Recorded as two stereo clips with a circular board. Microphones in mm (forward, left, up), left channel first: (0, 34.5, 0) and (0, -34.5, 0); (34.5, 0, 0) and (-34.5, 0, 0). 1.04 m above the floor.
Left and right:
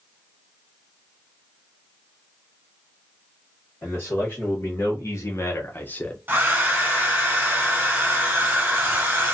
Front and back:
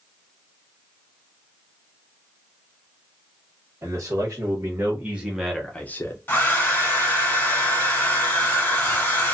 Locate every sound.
3.8 s a man speaking: 135° left, 1.3 m; by 6.2 s 20° left, 0.6 m
6.3 s a hair dryer: 45° right, 1.0 m